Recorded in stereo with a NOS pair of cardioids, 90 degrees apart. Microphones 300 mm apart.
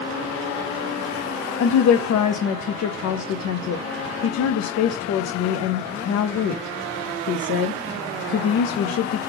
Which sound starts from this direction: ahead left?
A woman speaking, at 1.6 s.